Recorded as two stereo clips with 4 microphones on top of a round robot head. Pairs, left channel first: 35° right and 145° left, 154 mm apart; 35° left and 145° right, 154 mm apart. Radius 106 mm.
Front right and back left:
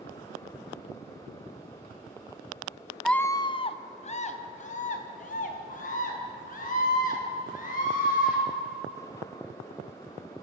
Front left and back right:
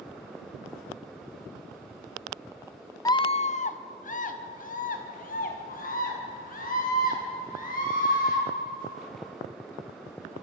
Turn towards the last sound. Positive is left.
turn(degrees=0)